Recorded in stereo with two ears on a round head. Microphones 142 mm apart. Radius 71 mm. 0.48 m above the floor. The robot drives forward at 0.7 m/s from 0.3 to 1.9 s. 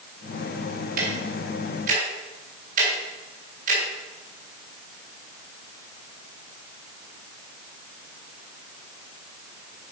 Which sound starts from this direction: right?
Ticking, at 1.0 s.